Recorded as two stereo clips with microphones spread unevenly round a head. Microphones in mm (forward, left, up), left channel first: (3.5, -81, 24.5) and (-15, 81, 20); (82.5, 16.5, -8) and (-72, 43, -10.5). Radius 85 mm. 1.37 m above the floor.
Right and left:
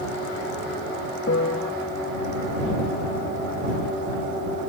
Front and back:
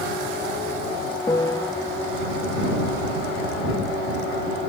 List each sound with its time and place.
1.3 s a piano: 80° right